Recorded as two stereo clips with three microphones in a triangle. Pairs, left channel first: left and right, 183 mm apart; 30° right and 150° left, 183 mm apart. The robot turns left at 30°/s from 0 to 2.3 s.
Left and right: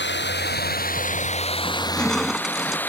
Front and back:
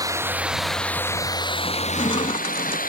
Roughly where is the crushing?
Ahead.